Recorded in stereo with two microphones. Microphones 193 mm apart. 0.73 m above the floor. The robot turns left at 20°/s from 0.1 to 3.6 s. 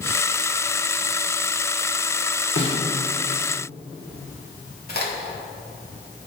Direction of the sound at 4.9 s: 55° left (ahead or behind).